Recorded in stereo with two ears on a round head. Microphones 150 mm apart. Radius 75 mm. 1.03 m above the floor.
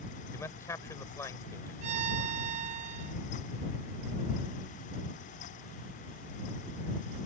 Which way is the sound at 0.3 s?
15° left (ahead or behind).